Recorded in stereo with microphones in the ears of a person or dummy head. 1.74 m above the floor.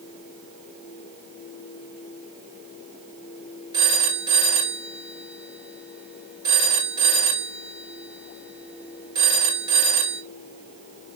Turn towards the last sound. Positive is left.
turn(degrees=-25)  # may be behind; listen again after turning